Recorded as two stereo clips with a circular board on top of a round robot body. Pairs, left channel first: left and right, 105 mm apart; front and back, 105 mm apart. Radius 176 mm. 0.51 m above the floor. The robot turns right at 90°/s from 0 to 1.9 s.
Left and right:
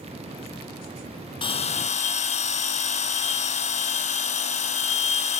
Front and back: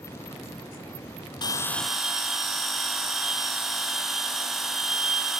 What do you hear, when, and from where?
1.4 s a bell: 50° left, 0.8 m; by 5.4 s 90° left, 0.8 m